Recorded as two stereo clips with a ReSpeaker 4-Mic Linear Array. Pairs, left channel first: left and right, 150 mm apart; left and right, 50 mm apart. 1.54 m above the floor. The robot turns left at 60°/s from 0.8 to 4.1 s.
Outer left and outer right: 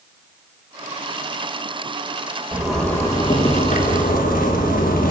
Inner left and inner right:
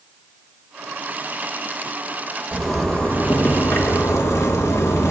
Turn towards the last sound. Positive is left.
turn(degrees=95)